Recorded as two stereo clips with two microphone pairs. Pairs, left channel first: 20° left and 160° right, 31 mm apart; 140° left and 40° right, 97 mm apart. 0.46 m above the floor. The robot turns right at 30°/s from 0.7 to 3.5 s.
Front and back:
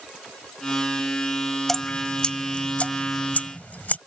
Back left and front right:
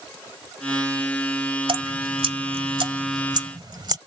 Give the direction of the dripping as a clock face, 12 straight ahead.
2 o'clock.